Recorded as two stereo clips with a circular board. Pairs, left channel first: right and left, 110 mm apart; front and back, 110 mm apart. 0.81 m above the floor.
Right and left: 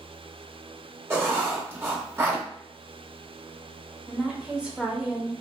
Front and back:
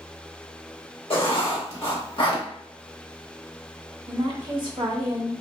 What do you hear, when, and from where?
1.1 s writing: 25° left, 0.8 m
4.1 s a woman speaking: 170° left, 0.6 m